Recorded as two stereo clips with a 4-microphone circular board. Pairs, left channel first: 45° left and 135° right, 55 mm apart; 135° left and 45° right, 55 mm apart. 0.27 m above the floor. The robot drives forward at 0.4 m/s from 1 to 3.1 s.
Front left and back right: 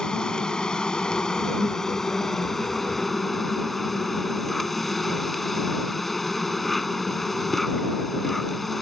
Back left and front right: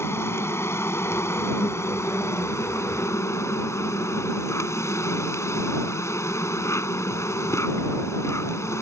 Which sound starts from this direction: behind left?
An insect, at 0.0 s.